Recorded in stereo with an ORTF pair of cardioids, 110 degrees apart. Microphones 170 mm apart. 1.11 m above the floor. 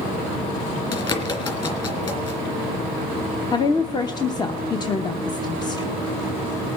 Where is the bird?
30° left, 3.5 m.